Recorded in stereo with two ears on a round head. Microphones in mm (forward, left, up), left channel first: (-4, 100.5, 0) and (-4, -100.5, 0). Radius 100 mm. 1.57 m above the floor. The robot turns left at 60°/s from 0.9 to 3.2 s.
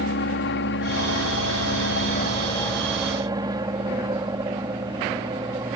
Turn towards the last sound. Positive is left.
turn(degrees=-20)